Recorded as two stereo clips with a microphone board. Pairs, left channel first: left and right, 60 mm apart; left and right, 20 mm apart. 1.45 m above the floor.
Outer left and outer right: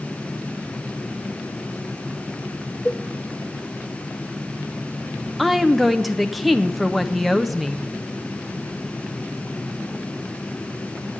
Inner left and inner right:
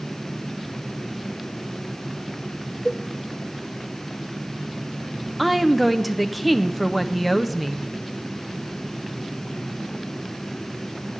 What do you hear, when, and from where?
2.9 s a cowbell: 25° left (ahead or behind), 1.1 m
5.4 s a woman speaking: centre (ahead or behind), 0.7 m